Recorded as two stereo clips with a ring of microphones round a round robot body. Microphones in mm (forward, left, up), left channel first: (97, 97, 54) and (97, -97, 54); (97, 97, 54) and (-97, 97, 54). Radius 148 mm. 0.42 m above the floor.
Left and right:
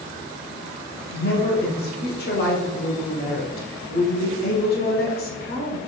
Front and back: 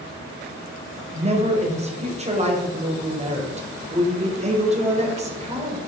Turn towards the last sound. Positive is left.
turn(degrees=130)